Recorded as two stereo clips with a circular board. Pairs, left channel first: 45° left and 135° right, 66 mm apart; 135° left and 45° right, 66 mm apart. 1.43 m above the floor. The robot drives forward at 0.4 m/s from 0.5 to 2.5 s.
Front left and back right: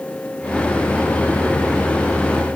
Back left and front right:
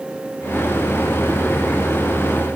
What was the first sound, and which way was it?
Only background noise.